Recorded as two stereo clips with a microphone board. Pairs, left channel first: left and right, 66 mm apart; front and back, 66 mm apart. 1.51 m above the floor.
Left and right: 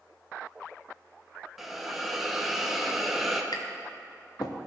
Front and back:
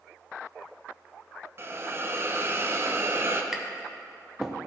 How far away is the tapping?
About 0.7 m.